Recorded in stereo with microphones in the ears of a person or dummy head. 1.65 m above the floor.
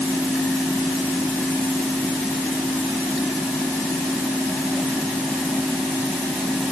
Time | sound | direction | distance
0.0 | a fan | centre (ahead or behind) | ?